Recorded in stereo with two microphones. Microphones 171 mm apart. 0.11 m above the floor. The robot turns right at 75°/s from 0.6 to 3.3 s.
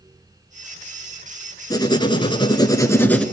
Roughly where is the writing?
Left.